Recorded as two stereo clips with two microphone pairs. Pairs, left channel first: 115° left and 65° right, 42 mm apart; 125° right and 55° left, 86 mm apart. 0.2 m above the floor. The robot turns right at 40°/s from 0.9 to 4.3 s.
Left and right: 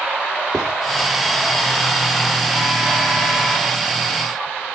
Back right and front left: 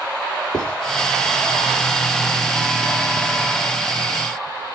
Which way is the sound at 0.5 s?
165° right.